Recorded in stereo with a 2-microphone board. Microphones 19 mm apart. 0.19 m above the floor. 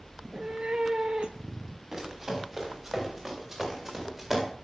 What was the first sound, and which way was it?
A cat meowing, 45° right (ahead or behind).